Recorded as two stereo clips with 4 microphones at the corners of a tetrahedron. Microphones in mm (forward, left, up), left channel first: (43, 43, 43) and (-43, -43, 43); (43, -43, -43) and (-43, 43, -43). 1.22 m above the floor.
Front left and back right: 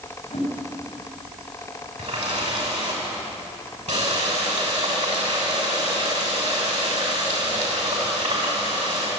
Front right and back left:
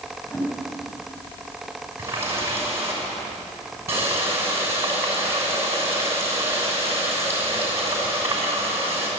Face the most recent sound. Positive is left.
turn(degrees=-155)